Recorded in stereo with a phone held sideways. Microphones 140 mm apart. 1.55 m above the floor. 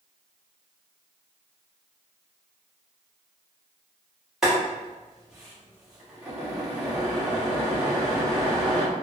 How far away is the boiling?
About 1.2 m.